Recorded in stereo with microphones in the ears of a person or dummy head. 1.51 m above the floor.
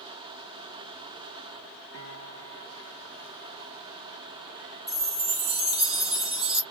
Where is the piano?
60° right (ahead or behind), 1.2 m.